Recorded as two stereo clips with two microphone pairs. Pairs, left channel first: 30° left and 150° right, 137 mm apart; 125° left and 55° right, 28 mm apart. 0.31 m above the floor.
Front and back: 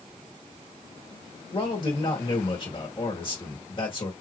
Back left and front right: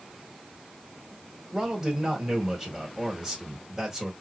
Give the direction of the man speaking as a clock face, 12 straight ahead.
12 o'clock.